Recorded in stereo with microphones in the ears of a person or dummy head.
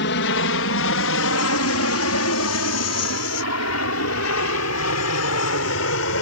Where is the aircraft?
60° left (ahead or behind); by 6.2 s 65° left (ahead or behind).